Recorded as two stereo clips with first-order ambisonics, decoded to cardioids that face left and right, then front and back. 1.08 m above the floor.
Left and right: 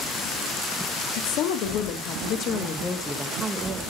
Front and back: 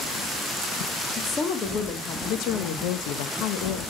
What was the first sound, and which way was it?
A woman speaking, 65° left.